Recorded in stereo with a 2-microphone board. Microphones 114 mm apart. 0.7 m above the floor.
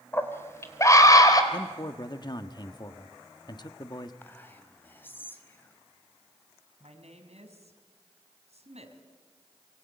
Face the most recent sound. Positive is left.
turn(degrees=-65)  # may be behind; listen again after turning